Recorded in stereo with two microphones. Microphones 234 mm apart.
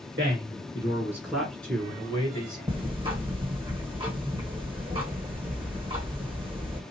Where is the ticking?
20° right (ahead or behind), 1.3 m.